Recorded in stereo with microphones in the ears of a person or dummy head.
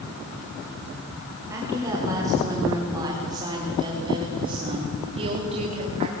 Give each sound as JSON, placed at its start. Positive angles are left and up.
{"t": 1.5, "sound": "a woman speaking", "side_deg": -15, "distance_m": 6.0}